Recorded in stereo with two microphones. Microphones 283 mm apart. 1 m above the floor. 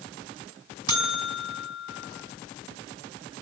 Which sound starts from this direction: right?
A buzzer, at 0.9 s.